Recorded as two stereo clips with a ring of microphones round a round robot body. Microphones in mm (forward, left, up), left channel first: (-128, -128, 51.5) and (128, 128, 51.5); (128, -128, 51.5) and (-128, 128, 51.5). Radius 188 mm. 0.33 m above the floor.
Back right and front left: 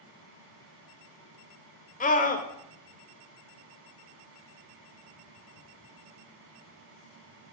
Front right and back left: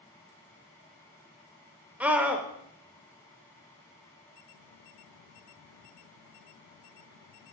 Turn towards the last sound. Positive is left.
turn(degrees=-145)